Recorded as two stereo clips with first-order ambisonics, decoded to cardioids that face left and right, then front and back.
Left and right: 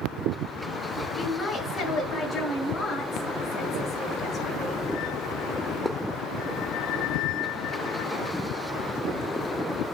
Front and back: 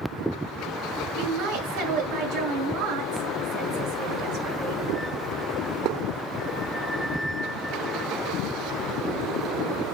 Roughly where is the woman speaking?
Behind.